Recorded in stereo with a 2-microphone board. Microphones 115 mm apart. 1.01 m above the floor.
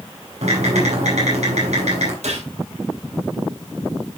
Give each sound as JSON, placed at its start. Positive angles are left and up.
{"t": 0.4, "sound": "typing on a keyboard", "side_deg": -75, "distance_m": 6.5}
{"t": 2.2, "sound": "a gunshot", "side_deg": -85, "distance_m": 4.5}